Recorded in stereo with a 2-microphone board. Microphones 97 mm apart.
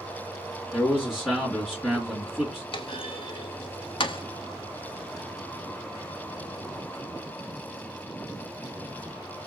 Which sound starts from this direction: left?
A clunk, at 2.7 s.